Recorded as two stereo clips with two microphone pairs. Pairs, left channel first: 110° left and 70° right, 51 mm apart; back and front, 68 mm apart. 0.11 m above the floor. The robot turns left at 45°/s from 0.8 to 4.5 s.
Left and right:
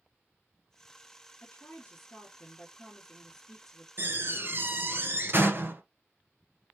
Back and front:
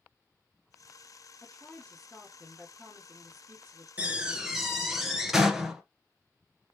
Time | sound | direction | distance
1.4 | a woman speaking | 140° left | 1.7 m
4.0 | a door slam | 60° right | 1.1 m